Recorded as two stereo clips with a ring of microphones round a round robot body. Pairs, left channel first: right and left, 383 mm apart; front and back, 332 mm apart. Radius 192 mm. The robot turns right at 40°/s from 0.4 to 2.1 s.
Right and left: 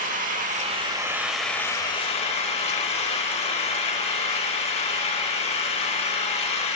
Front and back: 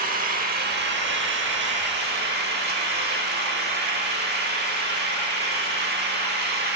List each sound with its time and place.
0.0 s an engine running: 140° left, 0.8 m; by 6.8 s 150° right, 0.8 m